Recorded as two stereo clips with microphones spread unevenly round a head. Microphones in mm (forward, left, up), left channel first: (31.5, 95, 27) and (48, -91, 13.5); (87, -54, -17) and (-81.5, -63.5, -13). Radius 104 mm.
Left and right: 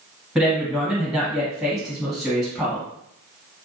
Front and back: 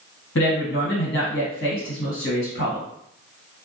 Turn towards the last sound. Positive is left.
turn(degrees=5)